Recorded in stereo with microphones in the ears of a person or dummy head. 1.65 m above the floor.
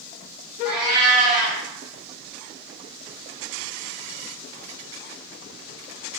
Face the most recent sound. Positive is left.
turn(degrees=-35)  # may be behind; listen again after turning